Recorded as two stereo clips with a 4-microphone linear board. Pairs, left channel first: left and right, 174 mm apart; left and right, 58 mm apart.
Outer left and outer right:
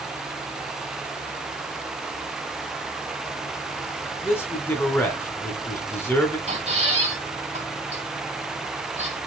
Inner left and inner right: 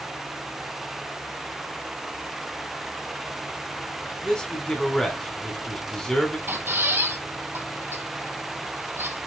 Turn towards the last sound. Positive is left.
turn(degrees=-40)  # may be behind; listen again after turning